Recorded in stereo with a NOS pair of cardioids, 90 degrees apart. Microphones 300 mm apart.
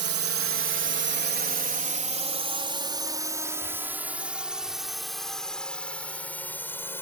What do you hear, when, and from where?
0.0 s a drone: 60° right; by 7.0 s 10° left